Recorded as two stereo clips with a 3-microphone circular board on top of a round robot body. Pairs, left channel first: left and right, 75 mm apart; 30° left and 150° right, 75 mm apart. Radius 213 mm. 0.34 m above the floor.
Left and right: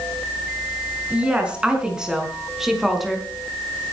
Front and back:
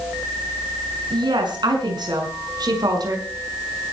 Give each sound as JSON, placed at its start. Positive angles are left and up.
{"t": 1.1, "sound": "a woman speaking", "azimuth_deg": -165, "distance_m": 5.5}